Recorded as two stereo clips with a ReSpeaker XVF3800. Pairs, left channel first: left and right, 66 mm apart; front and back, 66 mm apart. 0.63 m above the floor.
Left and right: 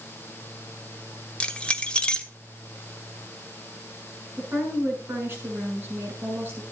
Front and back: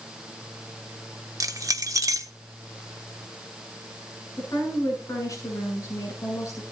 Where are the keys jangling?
160° left, 1.1 m.